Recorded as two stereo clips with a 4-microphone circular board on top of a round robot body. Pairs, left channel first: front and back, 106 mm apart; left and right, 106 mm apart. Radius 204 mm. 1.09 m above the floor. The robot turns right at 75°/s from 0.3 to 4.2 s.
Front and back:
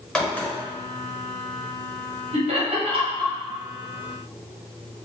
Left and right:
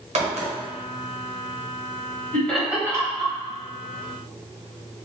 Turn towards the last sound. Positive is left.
turn(degrees=-60)